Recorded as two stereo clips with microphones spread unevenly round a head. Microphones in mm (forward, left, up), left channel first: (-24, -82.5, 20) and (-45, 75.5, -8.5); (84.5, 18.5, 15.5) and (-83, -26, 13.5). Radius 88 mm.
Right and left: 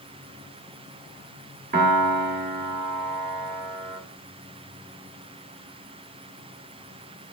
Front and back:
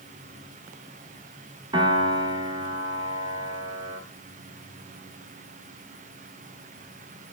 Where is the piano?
125° left, 1.4 m.